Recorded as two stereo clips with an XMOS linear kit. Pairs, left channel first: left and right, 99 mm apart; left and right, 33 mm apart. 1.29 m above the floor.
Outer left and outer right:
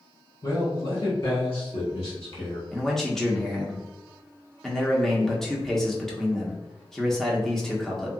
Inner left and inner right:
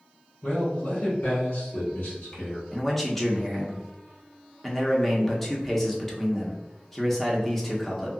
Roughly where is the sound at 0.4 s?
Left.